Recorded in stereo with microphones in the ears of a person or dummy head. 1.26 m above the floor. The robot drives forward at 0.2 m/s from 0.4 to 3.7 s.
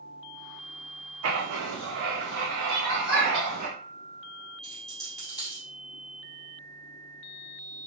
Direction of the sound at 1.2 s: 70° right (ahead or behind).